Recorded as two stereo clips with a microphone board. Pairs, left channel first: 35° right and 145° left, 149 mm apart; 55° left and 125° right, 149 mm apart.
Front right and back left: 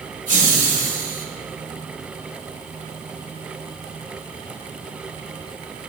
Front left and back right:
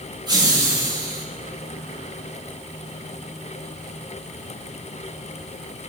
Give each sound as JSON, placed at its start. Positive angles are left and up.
{"t": 0.3, "sound": "laughter", "azimuth_deg": 175, "distance_m": 4.0}